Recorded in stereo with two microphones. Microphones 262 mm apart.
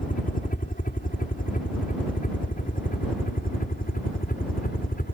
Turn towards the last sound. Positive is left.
turn(degrees=35)  # may be behind; listen again after turning